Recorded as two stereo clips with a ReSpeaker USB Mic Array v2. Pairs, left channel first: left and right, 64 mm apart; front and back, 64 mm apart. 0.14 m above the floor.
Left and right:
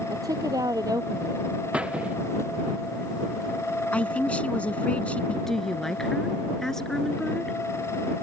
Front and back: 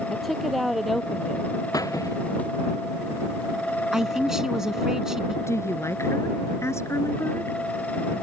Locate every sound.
0.1 s a woman speaking: 90° right
1.7 s a squeak: 20° right
3.9 s a man speaking: 110° left
5.5 s a woman speaking: 10° left